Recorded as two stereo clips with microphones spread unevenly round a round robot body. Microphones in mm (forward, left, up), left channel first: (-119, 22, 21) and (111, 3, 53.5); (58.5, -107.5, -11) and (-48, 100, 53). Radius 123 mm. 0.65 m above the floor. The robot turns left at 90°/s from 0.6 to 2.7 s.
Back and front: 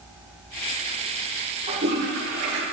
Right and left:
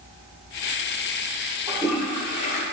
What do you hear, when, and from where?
1.7 s a toilet flushing: 50° left, 2 m; by 2.6 s 40° right, 2 m